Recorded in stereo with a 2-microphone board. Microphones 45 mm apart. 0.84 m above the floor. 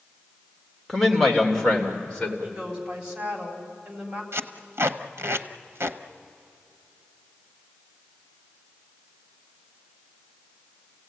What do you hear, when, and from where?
0.9 s a man speaking: 5° left (ahead or behind), 3 m; by 2.3 s 25° left (ahead or behind), 3.5 m
2.4 s a woman speaking: 20° right (ahead or behind), 4 m
4.3 s tape being pulled: 60° right (ahead or behind), 0.9 m